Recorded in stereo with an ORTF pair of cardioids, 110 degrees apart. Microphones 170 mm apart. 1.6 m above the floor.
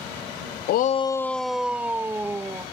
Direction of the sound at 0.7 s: 70° left.